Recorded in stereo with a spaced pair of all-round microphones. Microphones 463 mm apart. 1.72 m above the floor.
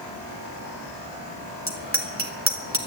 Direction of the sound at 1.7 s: 30° right (ahead or behind).